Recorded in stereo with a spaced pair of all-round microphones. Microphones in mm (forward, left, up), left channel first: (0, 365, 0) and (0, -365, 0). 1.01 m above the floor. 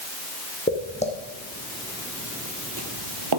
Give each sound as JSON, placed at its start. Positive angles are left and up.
{"t": 0.7, "sound": "footsteps", "side_deg": 10, "distance_m": 2.5}